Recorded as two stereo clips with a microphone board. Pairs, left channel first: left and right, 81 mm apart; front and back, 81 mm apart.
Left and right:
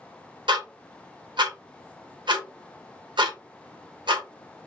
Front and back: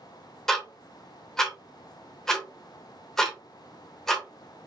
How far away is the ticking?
About 0.9 m.